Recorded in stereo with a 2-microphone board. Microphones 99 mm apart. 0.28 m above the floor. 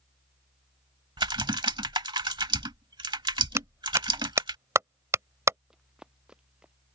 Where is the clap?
30° right (ahead or behind).